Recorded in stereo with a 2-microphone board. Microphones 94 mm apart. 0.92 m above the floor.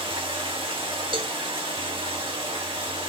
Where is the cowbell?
60° right (ahead or behind), 0.9 m.